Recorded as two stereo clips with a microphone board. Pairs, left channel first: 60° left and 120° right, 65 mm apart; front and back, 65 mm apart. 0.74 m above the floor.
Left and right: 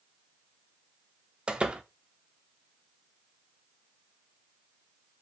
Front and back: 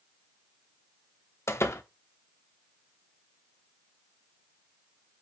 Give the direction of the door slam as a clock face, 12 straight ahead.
2 o'clock.